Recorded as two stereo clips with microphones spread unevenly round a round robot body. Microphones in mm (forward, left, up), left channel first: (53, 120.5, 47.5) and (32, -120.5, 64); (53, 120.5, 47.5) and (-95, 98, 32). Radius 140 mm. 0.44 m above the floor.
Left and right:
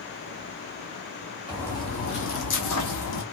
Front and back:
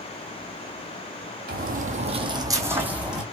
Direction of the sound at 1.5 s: Straight behind.